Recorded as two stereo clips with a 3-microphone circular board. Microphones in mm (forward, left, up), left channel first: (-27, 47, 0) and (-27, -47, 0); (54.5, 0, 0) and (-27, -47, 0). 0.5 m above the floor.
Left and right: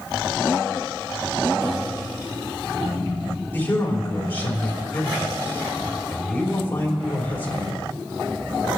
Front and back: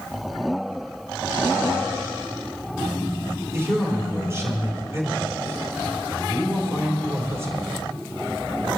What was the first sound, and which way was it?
A man speaking, 155° left.